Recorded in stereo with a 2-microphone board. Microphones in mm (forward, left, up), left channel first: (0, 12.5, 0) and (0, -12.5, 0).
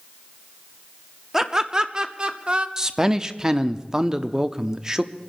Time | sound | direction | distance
1.3 | laughter | 20° right (ahead or behind) | 0.8 m
2.8 | a man speaking | 25° right (ahead or behind) | 0.7 m